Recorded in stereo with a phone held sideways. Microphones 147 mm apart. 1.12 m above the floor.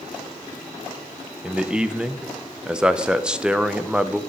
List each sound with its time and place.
1.4 s a man speaking: 5° right (ahead or behind), 0.5 m